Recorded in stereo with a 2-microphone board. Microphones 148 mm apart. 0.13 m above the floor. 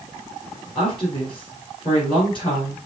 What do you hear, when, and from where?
0.8 s a woman speaking: 35° left (ahead or behind), 3 m